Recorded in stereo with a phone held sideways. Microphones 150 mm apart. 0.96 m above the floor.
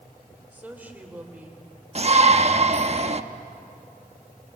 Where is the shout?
45° right (ahead or behind), 1.1 m.